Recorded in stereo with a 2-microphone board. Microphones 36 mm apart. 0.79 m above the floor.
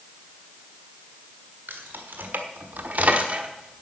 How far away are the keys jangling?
About 1.8 m.